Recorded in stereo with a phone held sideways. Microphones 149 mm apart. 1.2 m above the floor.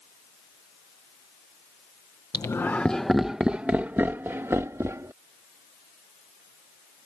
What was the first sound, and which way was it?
Laughter, 25° left (ahead or behind).